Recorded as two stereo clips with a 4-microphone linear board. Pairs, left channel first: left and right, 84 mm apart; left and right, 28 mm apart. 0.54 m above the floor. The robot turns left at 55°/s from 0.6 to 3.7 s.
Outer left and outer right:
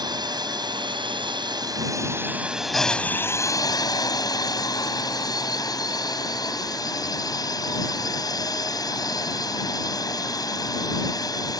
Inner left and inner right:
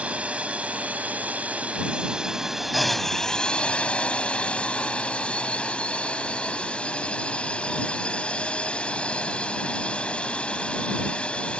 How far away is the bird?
No bird in this recording.